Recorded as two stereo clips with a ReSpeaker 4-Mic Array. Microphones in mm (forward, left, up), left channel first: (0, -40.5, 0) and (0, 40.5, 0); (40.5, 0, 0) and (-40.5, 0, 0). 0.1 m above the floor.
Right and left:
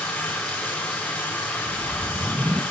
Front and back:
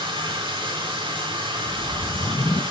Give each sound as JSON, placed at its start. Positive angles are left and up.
{"t": 0.0, "sound": "running water", "azimuth_deg": -170, "distance_m": 1.5}
{"t": 1.7, "sound": "a whoosh", "azimuth_deg": 25, "distance_m": 0.5}